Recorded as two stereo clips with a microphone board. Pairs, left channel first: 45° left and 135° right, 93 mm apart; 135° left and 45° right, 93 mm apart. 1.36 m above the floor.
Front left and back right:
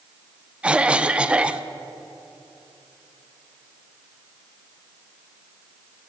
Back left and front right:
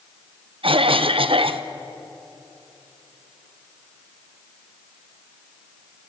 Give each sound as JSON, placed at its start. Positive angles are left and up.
{"t": 0.6, "sound": "a cough", "azimuth_deg": -55, "distance_m": 1.1}